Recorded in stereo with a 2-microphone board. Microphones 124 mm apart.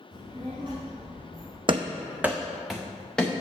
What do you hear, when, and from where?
0.1 s a child speaking: 40° right (ahead or behind), 1.7 m; by 1.6 s 45° right (ahead or behind), 3.5 m
1.7 s running footsteps: 45° right (ahead or behind), 0.5 m; by 3.3 s 5° left (ahead or behind), 1.6 m